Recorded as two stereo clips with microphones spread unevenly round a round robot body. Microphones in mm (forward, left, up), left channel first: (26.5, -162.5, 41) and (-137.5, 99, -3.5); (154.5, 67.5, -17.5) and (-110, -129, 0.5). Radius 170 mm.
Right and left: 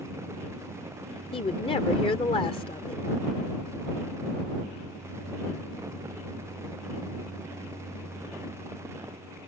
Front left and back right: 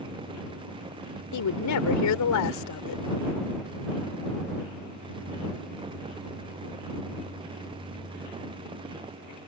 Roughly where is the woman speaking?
Ahead.